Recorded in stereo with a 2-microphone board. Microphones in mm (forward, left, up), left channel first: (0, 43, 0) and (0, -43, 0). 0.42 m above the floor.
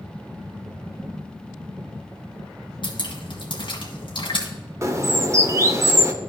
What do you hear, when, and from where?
2.8 s dripping: 60° left (ahead or behind), 1.9 m
4.8 s a bird: 30° right (ahead or behind), 0.7 m